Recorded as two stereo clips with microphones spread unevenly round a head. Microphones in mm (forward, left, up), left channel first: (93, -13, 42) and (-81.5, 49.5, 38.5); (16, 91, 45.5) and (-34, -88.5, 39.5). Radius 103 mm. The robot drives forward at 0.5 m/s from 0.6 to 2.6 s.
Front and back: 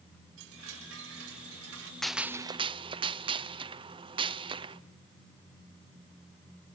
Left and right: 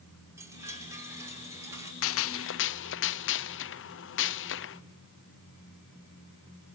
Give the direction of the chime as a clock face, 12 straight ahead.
6 o'clock.